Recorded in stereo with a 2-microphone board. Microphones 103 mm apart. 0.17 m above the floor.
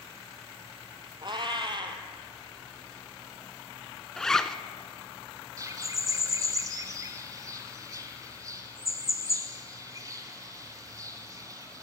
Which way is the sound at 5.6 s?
35° right (ahead or behind).